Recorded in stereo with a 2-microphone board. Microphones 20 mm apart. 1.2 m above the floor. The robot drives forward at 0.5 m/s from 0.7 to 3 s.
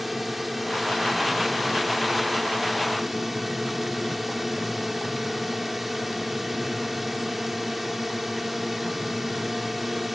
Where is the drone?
10° right (ahead or behind); by 10.2 s 15° right (ahead or behind).